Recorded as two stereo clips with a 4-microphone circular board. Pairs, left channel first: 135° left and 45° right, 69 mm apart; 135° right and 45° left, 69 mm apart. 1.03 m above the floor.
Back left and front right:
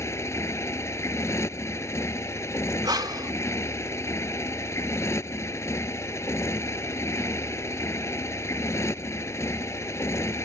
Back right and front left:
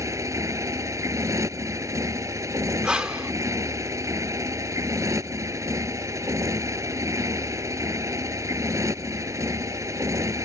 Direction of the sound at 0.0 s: 85° left.